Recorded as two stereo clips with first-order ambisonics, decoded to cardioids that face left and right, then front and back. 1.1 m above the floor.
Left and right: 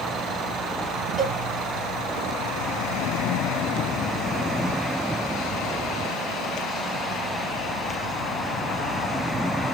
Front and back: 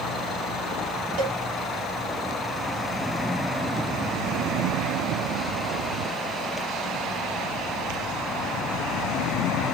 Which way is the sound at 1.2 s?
175° right.